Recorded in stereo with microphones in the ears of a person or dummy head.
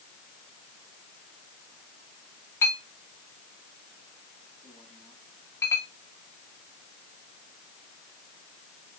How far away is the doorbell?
No doorbell in this recording.